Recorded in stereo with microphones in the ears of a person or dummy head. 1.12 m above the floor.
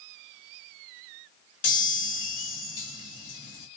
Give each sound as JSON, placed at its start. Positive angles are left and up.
{"t": 1.6, "sound": "a chime", "side_deg": 65, "distance_m": 2.5}